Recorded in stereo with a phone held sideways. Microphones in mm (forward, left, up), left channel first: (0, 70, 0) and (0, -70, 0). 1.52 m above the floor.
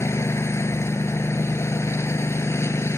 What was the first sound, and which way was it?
A lawn mower, 20° left (ahead or behind).